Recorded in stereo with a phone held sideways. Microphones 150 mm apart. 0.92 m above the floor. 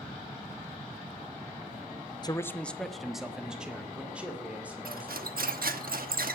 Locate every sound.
2.2 s a man speaking: 30° left (ahead or behind), 0.5 m; by 5.4 s 10° right (ahead or behind), 4 m
4.8 s cutlery clinking: 80° right, 1.0 m